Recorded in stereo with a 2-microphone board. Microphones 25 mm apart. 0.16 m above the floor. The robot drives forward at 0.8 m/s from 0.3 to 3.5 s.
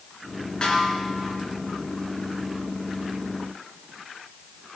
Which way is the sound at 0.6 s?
40° left (ahead or behind).